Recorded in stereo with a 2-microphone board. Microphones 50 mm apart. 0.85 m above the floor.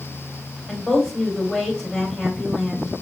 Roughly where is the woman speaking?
Centre.